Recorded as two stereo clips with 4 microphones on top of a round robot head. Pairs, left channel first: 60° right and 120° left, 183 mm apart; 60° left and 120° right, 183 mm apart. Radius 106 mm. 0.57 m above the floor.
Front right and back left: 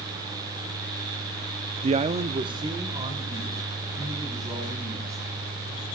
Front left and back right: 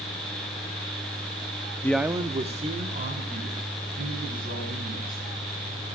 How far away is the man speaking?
About 0.6 m.